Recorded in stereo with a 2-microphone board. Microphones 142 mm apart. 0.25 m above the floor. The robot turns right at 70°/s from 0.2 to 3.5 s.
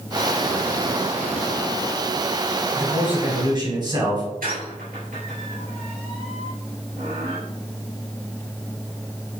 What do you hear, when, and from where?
2.8 s a man speaking: 175° left, 1.7 m; by 4.2 s 130° right, 1.7 m
4.4 s a squeak: 75° right (ahead or behind), 2.5 m